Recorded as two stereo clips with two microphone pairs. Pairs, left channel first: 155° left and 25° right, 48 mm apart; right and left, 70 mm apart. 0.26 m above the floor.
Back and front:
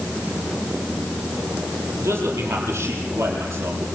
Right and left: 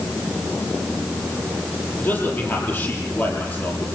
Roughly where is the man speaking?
Ahead right.